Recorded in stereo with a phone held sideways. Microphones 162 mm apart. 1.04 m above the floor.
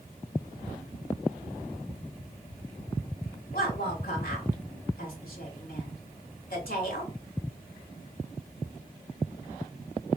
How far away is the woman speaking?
About 2.5 m.